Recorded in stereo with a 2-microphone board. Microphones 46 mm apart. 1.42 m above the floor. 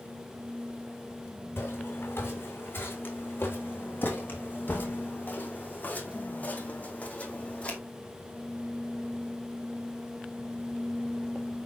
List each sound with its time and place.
1.6 s footsteps: 60° left (ahead or behind), 6.5 m; by 7.8 s 30° left (ahead or behind), 4.5 m